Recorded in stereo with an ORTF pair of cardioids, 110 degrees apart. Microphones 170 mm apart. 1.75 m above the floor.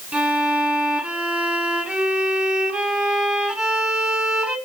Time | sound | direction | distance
0.1 | a violin | 5° right | 7 m